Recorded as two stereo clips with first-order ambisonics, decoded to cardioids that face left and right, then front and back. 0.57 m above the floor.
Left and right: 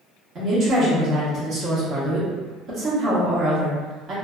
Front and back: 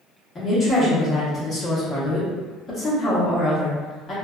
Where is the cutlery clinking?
No cutlery clinking in this recording.